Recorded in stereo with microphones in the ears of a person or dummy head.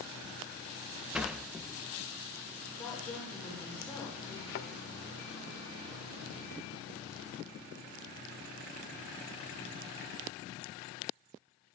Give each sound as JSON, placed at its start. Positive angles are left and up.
{"t": 1.1, "sound": "a sliding door", "side_deg": 0, "distance_m": 0.7}
{"t": 2.8, "sound": "a woman speaking", "side_deg": 5, "distance_m": 8.0}
{"t": 4.5, "sound": "a thud", "side_deg": 50, "distance_m": 1.1}